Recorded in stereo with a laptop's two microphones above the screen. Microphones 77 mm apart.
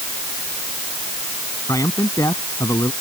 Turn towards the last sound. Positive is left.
turn(degrees=50)  # may be behind; listen again after turning